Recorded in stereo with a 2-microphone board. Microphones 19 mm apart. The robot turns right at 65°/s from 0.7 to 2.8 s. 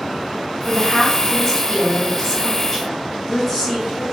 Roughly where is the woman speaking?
Centre.